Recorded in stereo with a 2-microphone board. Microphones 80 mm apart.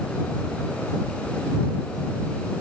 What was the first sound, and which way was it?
Only background noise.